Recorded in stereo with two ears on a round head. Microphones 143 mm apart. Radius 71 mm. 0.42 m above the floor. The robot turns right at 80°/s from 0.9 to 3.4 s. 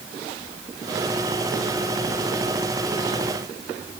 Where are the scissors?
No scissors in this recording.